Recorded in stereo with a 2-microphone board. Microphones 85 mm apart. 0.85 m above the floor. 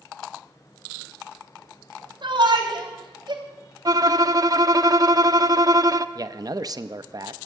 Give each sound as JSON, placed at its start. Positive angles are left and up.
{"t": 2.2, "sound": "a shout", "side_deg": -65, "distance_m": 3.0}
{"t": 3.9, "sound": "a violin", "side_deg": -45, "distance_m": 0.5}
{"t": 6.2, "sound": "a man speaking", "side_deg": -45, "distance_m": 0.6}